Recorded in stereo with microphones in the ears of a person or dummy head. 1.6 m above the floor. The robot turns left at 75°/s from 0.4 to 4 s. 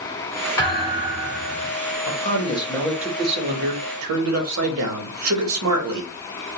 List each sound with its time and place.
0.6 s a thud: 165° left, 1.4 m; by 1.8 s 75° left, 1.4 m
2.1 s a man speaking: 60° left, 1.0 m; by 6.1 s 85° right, 1.0 m